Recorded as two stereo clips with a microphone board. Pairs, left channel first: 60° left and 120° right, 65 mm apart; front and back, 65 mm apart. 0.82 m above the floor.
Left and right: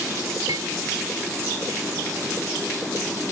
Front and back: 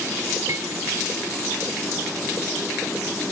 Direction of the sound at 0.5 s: 140° right.